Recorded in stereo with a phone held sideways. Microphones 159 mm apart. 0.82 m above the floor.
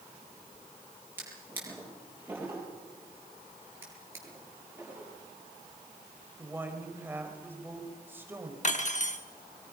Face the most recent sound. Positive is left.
turn(degrees=50)  # may be behind; listen again after turning